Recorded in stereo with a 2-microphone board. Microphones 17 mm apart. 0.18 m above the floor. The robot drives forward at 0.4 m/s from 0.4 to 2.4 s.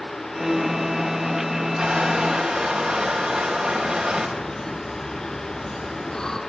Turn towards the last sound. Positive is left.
turn(degrees=40)  # may be behind; listen again after turning